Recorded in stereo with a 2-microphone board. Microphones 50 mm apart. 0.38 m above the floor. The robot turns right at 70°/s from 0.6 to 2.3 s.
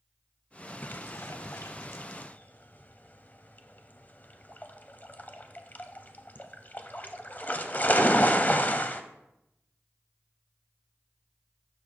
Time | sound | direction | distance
0.8 | a splash | 40° left (ahead or behind) | 0.6 m